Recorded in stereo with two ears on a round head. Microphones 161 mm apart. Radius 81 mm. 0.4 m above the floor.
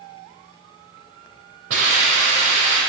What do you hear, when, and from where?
1.7 s a hiss: 80° right, 4.5 m